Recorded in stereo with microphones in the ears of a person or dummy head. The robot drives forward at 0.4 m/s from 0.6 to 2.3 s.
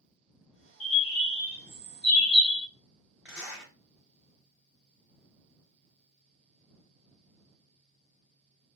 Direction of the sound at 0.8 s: 5° left (ahead or behind).